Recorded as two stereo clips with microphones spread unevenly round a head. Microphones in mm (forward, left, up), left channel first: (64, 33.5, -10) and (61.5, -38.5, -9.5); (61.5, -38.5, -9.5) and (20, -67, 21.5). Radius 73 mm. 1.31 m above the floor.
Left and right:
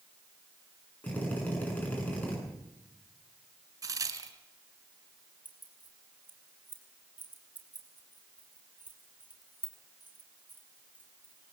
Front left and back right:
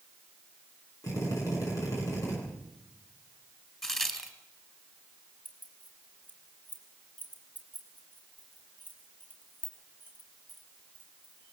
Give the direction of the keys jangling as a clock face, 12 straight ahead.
1 o'clock.